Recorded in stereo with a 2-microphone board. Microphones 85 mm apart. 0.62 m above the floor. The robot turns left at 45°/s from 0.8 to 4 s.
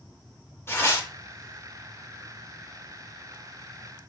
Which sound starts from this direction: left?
Tearing paper, at 0.7 s.